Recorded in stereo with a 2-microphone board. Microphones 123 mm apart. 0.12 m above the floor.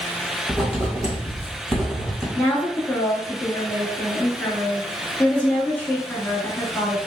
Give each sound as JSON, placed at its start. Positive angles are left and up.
{"t": 0.5, "sound": "writing", "side_deg": -10, "distance_m": 1.7}
{"t": 2.4, "sound": "a woman speaking", "side_deg": 15, "distance_m": 1.5}